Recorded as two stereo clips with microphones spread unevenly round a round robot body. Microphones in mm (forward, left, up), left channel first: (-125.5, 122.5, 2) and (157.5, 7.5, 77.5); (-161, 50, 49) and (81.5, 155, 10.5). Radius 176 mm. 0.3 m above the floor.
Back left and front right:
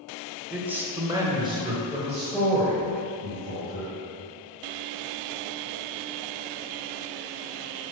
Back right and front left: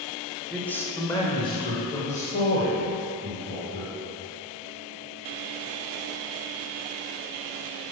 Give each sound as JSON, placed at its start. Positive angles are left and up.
{"t": 0.5, "sound": "a man speaking", "azimuth_deg": 100, "distance_m": 1.4}